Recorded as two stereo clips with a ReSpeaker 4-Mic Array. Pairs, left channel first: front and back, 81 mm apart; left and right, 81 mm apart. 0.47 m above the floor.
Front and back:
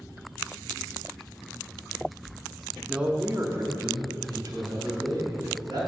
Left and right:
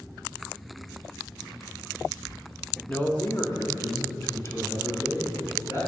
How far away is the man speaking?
About 0.7 m.